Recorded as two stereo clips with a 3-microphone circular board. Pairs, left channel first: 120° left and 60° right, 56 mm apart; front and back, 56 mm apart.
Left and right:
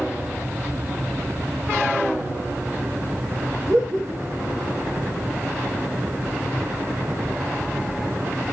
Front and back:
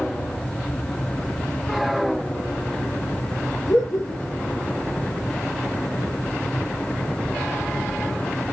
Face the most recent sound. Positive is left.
turn(degrees=-15)